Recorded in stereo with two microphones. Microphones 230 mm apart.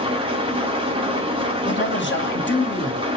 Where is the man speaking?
55° left (ahead or behind), 0.8 m.